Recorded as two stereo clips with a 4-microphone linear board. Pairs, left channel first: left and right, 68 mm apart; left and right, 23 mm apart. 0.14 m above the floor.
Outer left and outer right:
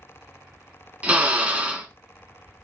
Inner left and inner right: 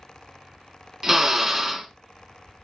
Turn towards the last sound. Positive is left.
turn(degrees=-20)  # may be behind; listen again after turning